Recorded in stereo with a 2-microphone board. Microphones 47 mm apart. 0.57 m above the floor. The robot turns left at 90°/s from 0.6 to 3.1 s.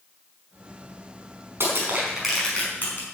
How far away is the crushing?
About 5 m.